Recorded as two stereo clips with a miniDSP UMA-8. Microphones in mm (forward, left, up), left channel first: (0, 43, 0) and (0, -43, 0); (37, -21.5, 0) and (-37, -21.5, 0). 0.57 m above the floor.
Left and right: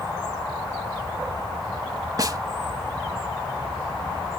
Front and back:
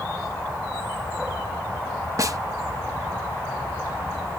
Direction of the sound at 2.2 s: 135° right.